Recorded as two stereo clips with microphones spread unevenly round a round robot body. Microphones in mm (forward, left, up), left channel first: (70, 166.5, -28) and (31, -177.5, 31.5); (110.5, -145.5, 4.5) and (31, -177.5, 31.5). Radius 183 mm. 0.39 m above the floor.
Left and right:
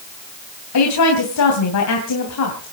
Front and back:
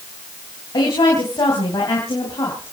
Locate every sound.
0.7 s a woman speaking: 60° left, 2.5 m